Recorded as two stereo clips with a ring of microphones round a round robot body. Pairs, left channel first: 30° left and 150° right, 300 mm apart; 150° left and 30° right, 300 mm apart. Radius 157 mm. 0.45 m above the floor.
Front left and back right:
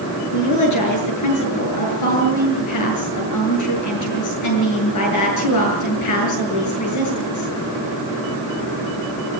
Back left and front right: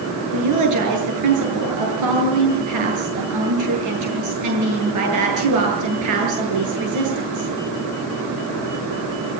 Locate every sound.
0.3 s a woman speaking: straight ahead, 8.5 m